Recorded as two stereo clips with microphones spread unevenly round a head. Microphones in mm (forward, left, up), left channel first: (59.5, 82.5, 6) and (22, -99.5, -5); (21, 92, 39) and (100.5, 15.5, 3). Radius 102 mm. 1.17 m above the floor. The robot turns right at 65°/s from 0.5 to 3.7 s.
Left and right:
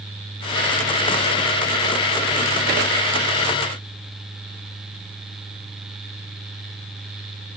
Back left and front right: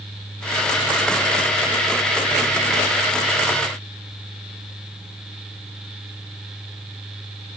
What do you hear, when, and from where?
Only background noise.